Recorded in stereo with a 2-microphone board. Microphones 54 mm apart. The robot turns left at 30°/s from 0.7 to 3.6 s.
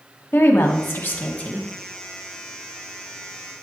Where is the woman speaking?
50° left (ahead or behind), 1.1 m; by 1.7 s 20° left (ahead or behind), 1.1 m.